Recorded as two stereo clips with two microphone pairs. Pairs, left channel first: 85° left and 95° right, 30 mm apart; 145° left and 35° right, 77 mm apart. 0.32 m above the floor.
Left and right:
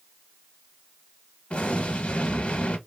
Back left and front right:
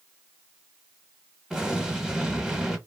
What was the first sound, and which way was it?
An explosion, 45° left.